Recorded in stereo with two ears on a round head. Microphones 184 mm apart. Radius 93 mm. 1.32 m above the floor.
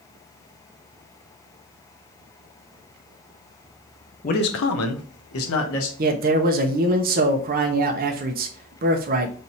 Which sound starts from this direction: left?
A man speaking, at 4.2 s.